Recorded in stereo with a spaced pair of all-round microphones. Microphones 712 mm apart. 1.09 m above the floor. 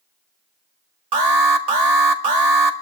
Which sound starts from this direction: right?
An alarm, at 1.1 s.